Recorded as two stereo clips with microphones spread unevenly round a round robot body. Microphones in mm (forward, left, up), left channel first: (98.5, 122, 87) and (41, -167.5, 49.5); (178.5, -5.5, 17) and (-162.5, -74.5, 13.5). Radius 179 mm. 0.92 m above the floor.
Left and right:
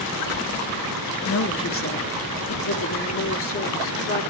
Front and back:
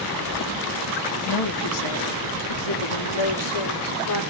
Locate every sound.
1.2 s a woman speaking: 30° left, 1.6 m; by 4.2 s 35° left, 3 m